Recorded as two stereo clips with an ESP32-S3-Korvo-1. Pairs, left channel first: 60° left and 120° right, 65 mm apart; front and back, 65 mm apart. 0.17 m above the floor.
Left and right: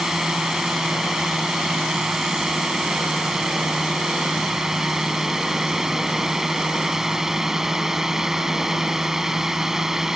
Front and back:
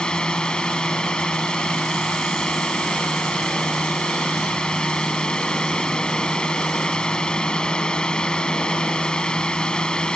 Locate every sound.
0.0 s a drone: 50° right